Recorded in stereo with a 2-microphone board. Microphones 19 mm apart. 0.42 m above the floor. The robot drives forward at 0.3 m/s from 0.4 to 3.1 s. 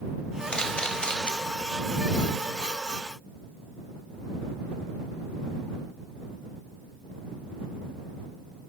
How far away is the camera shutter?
About 0.6 m.